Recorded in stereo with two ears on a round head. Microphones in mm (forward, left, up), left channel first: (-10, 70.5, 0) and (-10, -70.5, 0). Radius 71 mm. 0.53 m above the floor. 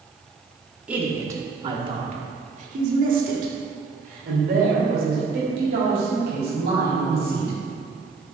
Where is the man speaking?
10° right (ahead or behind), 1.1 m; by 7.5 s 70° right (ahead or behind), 4 m.